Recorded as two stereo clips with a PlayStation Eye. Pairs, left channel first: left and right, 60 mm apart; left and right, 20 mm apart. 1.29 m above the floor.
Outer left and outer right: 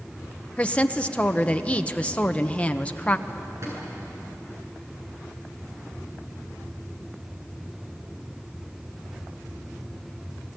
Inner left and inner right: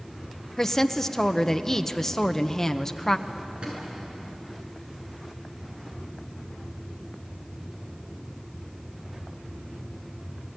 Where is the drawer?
55° right (ahead or behind), 8 m.